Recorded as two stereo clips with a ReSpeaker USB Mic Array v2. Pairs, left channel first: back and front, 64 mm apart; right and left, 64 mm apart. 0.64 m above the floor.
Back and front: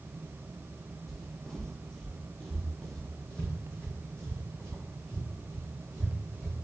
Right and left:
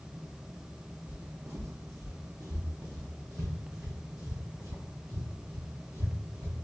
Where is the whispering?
I don't hear whispering.